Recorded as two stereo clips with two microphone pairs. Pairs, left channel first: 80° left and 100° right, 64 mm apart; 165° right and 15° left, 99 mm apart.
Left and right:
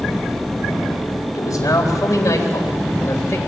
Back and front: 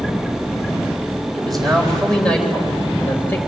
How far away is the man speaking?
About 3 m.